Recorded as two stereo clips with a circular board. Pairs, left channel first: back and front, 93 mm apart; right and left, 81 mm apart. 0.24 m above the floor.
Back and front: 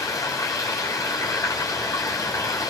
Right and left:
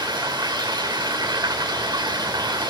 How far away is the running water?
About 4.5 m.